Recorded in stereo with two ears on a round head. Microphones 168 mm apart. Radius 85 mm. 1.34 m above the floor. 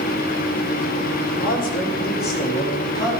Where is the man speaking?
45° left (ahead or behind), 2.5 m; by 3.1 s 20° left (ahead or behind), 2.5 m.